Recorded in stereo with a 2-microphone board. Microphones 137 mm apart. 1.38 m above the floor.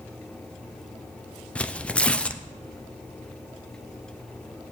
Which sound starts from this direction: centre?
Tearing paper, at 1.6 s.